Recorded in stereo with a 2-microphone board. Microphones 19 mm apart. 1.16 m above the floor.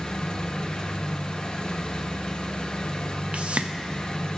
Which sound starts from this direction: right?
A whoosh, at 3.3 s.